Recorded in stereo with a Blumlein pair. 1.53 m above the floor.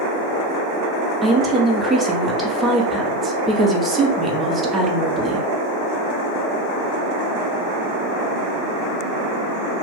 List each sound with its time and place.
1.2 s a woman speaking: 15° right, 0.9 m